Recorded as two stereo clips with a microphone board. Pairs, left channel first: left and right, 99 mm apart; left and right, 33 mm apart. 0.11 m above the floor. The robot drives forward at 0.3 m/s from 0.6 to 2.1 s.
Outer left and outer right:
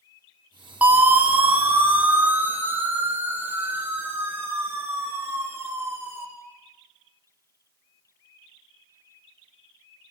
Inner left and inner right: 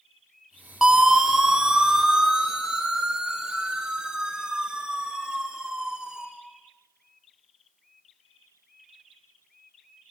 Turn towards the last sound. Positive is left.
turn(degrees=-25)  # may be behind; listen again after turning